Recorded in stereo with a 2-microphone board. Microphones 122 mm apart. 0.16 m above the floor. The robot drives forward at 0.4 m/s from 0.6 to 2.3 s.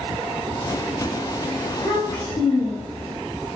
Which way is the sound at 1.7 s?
50° left (ahead or behind).